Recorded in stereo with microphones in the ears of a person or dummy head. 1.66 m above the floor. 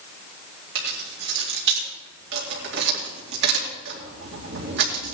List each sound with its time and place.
0.8 s keys jangling: 65° right (ahead or behind), 2.5 m